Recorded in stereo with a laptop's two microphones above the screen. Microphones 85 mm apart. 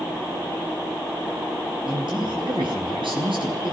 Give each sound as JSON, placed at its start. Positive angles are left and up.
{"t": 1.9, "sound": "a man speaking", "side_deg": -70, "distance_m": 10.0}